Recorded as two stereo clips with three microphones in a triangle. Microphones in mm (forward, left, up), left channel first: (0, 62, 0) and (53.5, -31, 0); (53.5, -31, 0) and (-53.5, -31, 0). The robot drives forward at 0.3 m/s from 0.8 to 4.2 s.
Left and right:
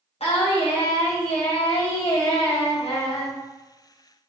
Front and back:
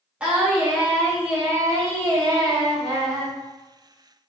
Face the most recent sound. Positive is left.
turn(degrees=145)